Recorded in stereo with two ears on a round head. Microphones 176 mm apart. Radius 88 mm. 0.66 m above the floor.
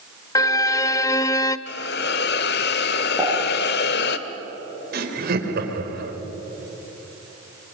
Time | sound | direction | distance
0.3 | a violin | 15° left (ahead or behind) | 0.6 m
1.7 | a hiss | 55° left (ahead or behind) | 1.1 m
3.2 | a pop | centre (ahead or behind) | 8 m
4.9 | laughter | 50° right (ahead or behind) | 3.5 m